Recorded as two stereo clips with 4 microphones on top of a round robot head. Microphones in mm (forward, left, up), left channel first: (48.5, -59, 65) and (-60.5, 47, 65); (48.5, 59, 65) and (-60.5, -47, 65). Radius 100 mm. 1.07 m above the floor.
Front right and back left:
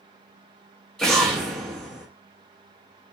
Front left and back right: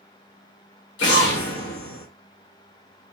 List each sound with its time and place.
1.0 s an explosion: 40° left, 0.9 m